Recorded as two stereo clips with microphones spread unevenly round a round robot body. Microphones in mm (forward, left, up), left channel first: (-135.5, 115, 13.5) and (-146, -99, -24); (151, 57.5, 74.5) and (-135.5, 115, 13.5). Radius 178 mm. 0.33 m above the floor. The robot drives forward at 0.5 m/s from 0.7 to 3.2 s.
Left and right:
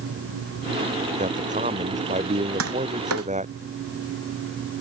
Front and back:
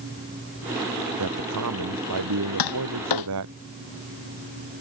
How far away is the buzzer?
No buzzer in this recording.